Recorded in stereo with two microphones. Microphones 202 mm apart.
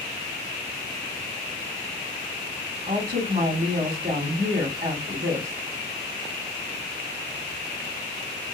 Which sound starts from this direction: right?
A woman speaking, at 2.9 s.